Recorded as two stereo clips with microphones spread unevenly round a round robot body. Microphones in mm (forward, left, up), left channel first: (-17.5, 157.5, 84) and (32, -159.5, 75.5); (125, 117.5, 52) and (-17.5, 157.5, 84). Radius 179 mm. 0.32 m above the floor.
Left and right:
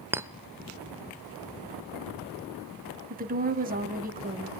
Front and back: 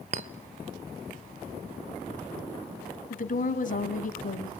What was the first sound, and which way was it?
A clink, 160° right.